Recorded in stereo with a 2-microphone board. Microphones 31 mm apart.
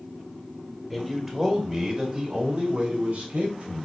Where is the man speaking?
5° right (ahead or behind), 2.5 m; by 3.9 s 50° right (ahead or behind), 3 m.